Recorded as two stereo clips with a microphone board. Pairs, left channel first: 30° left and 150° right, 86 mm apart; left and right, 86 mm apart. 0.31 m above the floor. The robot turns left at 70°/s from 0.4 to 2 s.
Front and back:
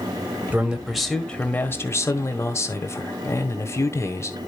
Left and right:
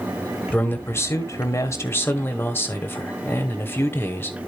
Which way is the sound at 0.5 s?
150° left.